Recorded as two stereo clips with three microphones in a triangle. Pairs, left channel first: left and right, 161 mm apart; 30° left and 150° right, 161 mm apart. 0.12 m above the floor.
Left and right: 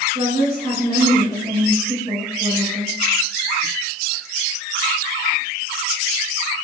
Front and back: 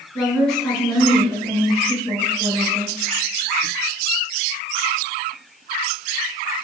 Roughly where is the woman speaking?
Ahead right.